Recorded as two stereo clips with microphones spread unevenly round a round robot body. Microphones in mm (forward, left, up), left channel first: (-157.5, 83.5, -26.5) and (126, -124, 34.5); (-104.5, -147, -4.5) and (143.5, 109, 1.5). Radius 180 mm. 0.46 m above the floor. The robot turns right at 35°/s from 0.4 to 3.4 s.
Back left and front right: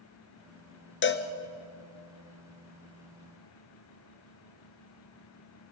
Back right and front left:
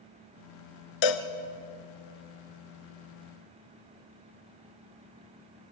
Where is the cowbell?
155° right, 1.2 m; by 1.3 s 145° right, 1.2 m.